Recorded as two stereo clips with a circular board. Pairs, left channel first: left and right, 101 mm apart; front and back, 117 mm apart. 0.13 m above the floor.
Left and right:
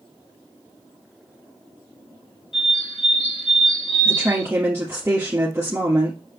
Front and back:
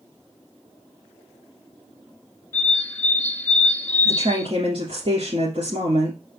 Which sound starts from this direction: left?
A bird, at 2.5 s.